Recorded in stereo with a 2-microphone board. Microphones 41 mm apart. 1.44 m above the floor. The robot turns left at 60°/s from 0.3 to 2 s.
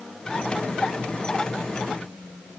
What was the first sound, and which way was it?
Only background noise.